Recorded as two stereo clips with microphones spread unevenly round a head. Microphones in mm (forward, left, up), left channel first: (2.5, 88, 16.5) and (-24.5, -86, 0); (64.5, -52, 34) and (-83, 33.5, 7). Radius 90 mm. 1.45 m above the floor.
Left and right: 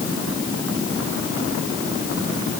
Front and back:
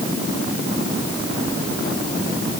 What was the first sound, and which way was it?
Only background noise.